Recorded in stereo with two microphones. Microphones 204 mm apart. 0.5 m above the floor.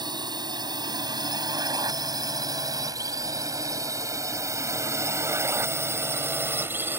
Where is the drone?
20° right (ahead or behind); by 7.0 s 10° right (ahead or behind).